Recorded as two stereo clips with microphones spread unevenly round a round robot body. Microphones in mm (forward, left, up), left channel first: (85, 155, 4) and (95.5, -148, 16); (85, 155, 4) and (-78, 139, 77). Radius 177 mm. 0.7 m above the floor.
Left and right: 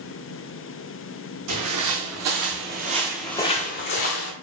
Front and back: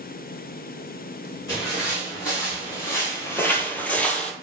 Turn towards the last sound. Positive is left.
turn(degrees=110)